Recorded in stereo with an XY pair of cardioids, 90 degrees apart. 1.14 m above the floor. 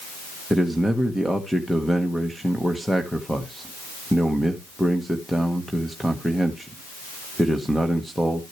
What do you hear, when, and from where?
0.5 s a man speaking: straight ahead, 1.1 m